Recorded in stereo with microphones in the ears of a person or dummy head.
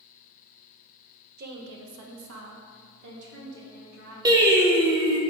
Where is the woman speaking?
40° right (ahead or behind), 0.8 m; by 4.2 s 65° right (ahead or behind), 2.5 m.